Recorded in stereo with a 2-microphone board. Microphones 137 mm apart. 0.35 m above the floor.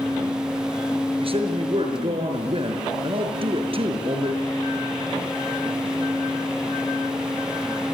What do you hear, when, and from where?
1.2 s a man speaking: 45° right (ahead or behind), 5 m